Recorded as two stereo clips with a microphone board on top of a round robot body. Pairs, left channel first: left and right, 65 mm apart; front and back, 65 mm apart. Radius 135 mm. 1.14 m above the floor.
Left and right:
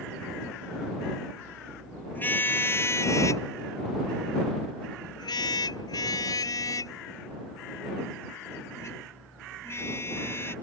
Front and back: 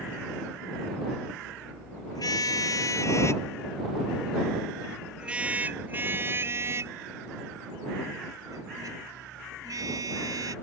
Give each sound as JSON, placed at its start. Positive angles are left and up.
{"t": 2.1, "sound": "a car horn", "azimuth_deg": 30}